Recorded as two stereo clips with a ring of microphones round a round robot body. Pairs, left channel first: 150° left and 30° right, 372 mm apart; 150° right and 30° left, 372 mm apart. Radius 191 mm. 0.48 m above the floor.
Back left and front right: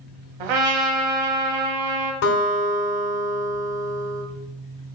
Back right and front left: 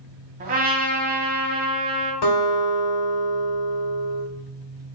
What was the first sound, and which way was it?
A trumpet, 40° right.